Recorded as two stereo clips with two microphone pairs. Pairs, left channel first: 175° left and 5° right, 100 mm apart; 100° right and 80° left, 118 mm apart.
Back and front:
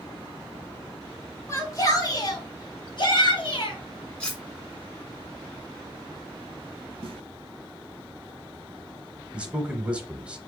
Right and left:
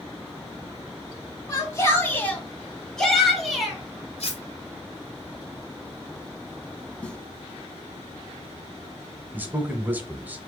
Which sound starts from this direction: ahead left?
A man speaking, at 9.3 s.